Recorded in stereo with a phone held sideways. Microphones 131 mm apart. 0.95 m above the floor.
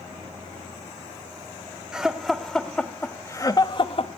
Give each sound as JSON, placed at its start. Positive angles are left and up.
{"t": 1.9, "sound": "laughter", "side_deg": -5, "distance_m": 2.5}